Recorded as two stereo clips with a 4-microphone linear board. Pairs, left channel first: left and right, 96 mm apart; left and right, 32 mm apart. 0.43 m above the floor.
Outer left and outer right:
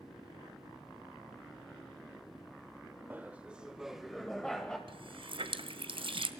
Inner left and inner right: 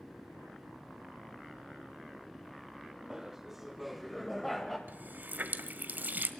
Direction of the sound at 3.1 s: 20° right (ahead or behind).